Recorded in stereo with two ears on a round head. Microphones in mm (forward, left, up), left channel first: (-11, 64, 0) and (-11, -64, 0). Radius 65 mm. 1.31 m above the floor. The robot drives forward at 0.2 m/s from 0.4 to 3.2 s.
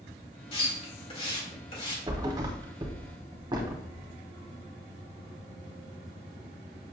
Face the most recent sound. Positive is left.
turn(degrees=-30)  # may be behind; listen again after turning